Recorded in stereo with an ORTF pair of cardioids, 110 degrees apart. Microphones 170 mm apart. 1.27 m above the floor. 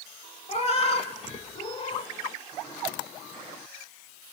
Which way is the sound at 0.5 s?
40° left.